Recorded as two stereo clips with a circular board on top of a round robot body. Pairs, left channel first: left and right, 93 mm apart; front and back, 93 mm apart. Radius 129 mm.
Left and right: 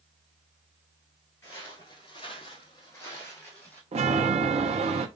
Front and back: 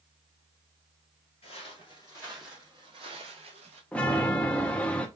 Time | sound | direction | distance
1.4 | footsteps | 20° left | 1.1 m
3.9 | a chime | 80° right | 0.6 m